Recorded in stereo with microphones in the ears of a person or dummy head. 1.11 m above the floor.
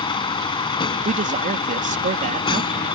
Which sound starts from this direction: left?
A vehicle, at 0.0 s.